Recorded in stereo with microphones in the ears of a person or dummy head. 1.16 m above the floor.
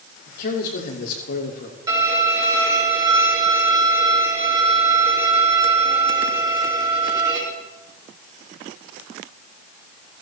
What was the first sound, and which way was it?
A man speaking, 60° left (ahead or behind).